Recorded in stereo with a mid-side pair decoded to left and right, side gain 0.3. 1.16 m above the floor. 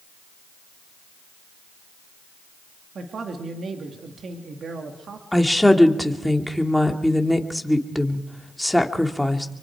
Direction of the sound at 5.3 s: 5° left.